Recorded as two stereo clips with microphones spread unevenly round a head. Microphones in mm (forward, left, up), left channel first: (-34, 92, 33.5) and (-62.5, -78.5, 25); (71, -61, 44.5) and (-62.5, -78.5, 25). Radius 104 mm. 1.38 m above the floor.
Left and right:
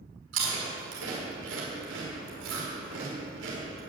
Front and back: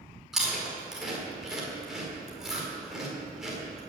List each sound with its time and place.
0.3 s chewing: 85° right, 5 m